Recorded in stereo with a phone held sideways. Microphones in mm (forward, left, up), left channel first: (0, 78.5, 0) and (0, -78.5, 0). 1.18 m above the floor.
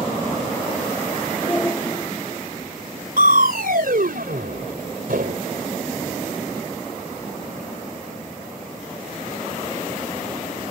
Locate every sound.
1.4 s a shout: 15° left (ahead or behind)
3.2 s crushing: 75° right (ahead or behind)